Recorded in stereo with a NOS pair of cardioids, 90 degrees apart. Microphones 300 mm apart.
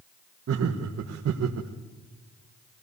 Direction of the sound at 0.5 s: 50° right.